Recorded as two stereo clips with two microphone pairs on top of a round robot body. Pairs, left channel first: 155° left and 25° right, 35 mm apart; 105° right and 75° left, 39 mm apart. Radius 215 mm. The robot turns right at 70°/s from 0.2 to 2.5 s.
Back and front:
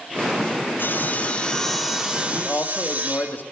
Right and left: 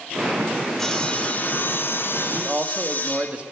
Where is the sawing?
Straight behind, 3 m; by 3.3 s 60° right, 3 m.